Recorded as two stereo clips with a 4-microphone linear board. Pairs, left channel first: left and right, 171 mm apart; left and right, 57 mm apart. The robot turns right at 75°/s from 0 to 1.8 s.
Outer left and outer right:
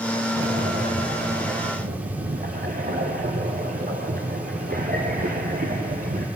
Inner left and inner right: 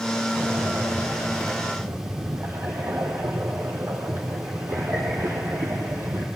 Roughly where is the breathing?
Behind.